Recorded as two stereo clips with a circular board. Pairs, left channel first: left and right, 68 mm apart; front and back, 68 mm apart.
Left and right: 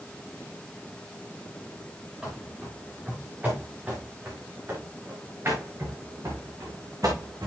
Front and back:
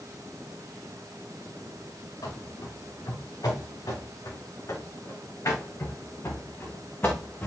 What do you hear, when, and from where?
2.2 s running footsteps: 15° right, 4.5 m; by 7.5 s 60° right, 3 m